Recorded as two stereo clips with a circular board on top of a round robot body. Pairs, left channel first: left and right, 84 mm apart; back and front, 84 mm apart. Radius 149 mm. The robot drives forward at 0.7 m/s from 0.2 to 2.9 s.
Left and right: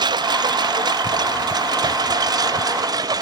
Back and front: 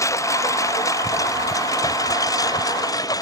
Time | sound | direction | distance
0.0 | a lawn mower | 125° right | ?